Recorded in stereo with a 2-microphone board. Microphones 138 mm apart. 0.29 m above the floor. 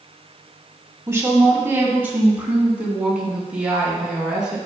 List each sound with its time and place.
1.1 s a woman speaking: 20° right (ahead or behind), 2.5 m; by 4.6 s 5° right (ahead or behind), 4 m